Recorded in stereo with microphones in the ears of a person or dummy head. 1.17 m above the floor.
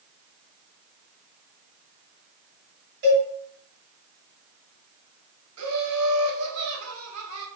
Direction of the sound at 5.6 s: 85° right.